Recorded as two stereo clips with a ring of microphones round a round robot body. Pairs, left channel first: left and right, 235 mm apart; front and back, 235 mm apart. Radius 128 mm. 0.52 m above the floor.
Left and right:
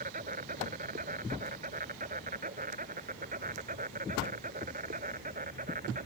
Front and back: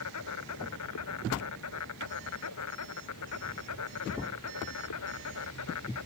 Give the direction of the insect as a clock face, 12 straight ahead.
1 o'clock.